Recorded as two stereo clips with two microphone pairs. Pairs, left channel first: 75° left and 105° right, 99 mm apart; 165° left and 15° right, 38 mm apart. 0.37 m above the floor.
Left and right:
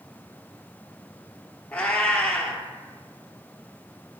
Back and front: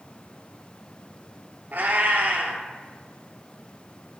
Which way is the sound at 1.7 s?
Straight ahead.